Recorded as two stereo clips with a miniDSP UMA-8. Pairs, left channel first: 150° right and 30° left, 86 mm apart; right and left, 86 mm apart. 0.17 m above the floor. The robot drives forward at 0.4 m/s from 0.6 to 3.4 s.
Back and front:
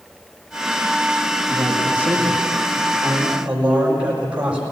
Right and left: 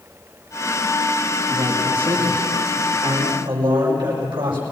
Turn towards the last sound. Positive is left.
turn(degrees=110)